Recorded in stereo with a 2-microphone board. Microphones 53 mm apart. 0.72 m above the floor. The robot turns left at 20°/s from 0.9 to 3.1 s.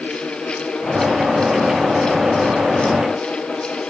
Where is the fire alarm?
I don't hear a fire alarm.